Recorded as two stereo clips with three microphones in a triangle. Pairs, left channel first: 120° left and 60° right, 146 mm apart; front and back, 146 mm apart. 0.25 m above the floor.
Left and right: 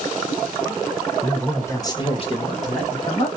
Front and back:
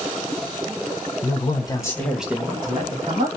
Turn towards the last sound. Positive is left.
turn(degrees=150)